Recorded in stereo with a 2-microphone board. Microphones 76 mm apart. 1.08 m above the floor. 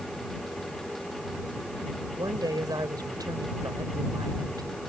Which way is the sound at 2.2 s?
65° right (ahead or behind).